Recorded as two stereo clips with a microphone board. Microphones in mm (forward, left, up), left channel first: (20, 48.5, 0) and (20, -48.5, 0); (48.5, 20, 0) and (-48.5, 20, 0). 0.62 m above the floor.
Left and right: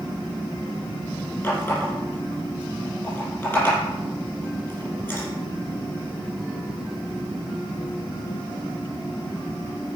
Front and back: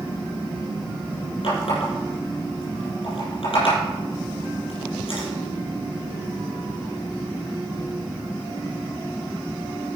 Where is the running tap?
20° left, 5 m.